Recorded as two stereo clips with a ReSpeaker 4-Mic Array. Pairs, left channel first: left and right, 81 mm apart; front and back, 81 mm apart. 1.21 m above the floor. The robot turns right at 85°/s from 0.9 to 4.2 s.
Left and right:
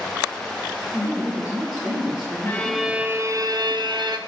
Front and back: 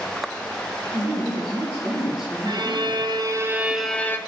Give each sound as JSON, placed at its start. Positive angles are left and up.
{"t": 0.9, "sound": "a woman speaking", "azimuth_deg": 155, "distance_m": 1.0}
{"t": 2.5, "sound": "a violin", "azimuth_deg": 155, "distance_m": 0.5}